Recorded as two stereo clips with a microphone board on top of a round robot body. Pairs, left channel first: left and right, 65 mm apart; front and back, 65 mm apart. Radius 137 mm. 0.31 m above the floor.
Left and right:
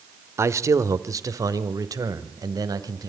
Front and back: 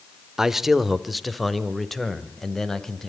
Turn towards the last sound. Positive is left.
turn(degrees=-85)